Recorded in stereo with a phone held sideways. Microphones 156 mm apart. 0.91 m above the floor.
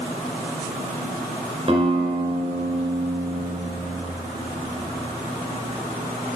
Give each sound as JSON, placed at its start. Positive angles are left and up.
{"t": 1.7, "sound": "a guitar", "side_deg": -40, "distance_m": 2.5}